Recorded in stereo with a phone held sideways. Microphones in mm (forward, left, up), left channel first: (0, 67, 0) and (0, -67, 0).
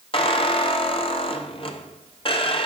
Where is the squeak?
40° left (ahead or behind), 1.0 m.